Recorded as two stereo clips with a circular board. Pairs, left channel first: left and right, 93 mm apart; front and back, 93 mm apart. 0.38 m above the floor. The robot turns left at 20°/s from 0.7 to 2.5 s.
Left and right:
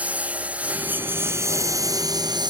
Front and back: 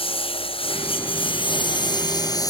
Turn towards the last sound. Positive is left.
turn(degrees=-50)